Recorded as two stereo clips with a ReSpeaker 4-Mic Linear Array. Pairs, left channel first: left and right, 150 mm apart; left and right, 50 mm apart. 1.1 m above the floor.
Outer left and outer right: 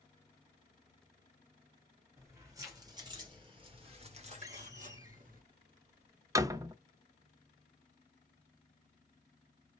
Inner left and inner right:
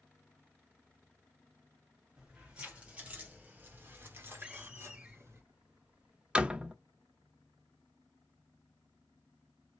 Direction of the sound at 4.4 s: 20° right (ahead or behind).